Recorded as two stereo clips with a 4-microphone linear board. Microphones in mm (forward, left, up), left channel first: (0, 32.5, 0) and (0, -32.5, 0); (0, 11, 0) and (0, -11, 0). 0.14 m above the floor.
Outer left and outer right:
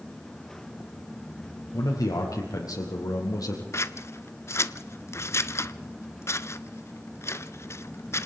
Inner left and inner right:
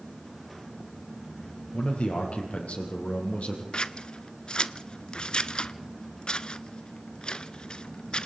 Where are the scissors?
45° left (ahead or behind), 0.7 m.